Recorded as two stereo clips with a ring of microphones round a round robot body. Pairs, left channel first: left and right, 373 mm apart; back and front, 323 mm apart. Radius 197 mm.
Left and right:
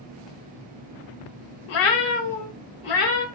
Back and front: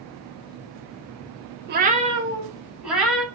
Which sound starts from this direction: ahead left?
A cat meowing, at 1.7 s.